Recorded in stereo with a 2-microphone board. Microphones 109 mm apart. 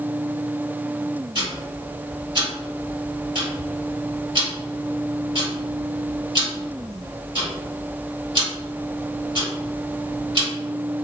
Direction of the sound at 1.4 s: 55° right (ahead or behind).